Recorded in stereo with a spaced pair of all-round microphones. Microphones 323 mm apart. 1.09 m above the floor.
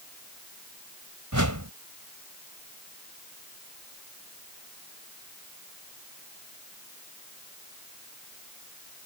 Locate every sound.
1.3 s a whoosh: 65° right (ahead or behind)